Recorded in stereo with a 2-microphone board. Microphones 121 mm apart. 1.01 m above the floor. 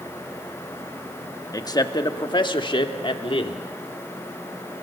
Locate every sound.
1.5 s a man speaking: 30° left (ahead or behind), 1.5 m; by 3.7 s 50° left (ahead or behind), 2.5 m